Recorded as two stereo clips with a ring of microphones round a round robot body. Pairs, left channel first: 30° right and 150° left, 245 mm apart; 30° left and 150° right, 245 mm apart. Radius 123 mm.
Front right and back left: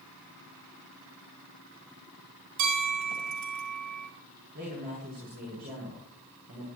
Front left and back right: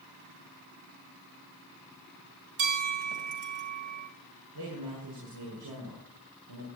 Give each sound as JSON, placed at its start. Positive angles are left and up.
{"t": 2.6, "sound": "a bell", "azimuth_deg": 165, "distance_m": 3.5}
{"t": 4.5, "sound": "a man speaking", "azimuth_deg": -155, "distance_m": 7.0}